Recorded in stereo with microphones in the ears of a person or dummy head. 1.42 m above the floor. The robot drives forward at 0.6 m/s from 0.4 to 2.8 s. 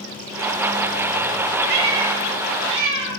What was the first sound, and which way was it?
A cat meowing, 60° right (ahead or behind).